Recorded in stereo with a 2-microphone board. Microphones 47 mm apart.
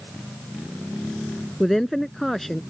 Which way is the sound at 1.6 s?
5° left (ahead or behind).